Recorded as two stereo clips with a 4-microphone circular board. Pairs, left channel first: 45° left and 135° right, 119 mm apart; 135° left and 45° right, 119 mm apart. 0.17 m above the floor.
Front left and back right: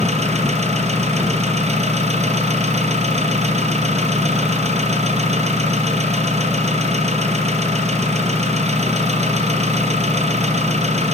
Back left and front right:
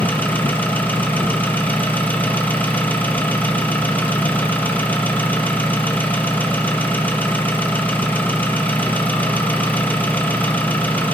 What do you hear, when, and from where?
0.0 s an engine running: 150° right, 3.5 m